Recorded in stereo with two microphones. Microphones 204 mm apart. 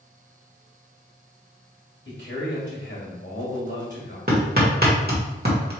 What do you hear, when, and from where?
2.0 s a man speaking: 60° left (ahead or behind), 2 m
4.3 s hammering: 50° right (ahead or behind), 1.5 m